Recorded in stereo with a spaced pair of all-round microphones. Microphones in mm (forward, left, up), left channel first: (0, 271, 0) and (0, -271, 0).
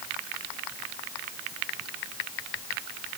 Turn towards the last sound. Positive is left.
No sound to turn to.